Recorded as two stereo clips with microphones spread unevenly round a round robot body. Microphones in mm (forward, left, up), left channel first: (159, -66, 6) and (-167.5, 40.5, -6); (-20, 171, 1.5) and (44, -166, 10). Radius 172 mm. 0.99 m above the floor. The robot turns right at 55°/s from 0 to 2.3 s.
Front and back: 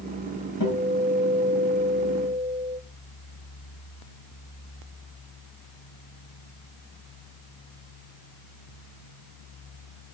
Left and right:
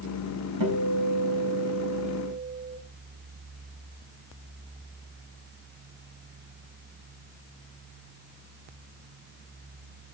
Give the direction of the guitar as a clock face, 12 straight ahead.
2 o'clock.